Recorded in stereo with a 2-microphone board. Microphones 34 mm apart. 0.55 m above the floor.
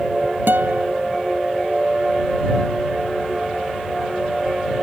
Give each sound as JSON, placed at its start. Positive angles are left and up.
{"t": 0.5, "sound": "a guitar", "side_deg": -85}